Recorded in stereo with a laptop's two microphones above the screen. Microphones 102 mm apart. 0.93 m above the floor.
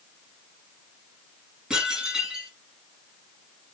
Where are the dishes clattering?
10° right (ahead or behind), 8 m.